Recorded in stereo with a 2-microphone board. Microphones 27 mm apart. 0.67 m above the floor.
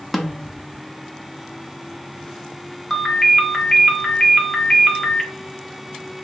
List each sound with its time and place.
0.1 s a snare drum: centre (ahead or behind), 0.6 m
2.9 s a ringtone: 5° left (ahead or behind), 1.2 m